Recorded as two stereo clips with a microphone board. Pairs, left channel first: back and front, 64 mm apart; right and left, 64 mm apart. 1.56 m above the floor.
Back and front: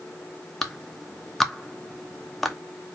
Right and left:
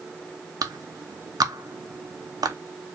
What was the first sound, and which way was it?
A clap, 95° left.